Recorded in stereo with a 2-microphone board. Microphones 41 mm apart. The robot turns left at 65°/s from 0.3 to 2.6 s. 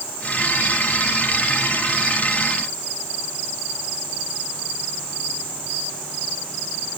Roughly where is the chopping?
I don't hear chopping.